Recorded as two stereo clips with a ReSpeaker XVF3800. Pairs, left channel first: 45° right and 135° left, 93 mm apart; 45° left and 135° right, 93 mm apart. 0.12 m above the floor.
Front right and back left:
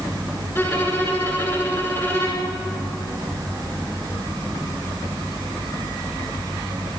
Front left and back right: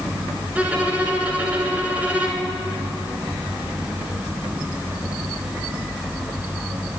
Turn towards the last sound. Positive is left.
turn(degrees=-80)